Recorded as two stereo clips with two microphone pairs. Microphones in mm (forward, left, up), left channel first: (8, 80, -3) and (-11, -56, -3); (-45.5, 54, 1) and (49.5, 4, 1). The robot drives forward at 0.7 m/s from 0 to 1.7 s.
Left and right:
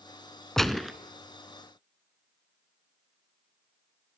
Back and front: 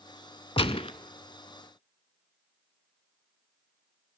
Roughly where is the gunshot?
Behind.